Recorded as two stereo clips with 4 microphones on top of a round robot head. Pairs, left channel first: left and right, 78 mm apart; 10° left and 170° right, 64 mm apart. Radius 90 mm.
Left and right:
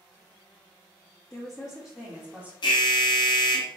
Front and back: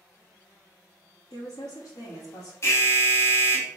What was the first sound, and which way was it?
A woman speaking, 15° left.